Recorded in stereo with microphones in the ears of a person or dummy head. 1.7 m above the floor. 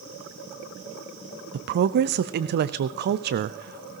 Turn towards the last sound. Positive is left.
turn(degrees=-50)  # may be behind; listen again after turning